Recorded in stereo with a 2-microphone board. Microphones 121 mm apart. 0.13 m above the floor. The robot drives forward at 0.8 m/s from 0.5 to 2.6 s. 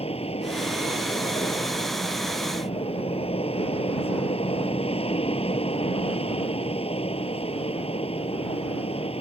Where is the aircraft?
55° left (ahead or behind); by 9.2 s 50° left (ahead or behind).